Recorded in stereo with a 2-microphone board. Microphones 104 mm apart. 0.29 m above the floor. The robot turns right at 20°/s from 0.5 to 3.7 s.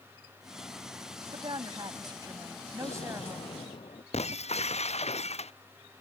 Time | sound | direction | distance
1.3 | a woman speaking | 70° right | ?
2.8 | an explosion | 75° left (ahead or behind) | ?
4.1 | breaking glass | 90° left | ?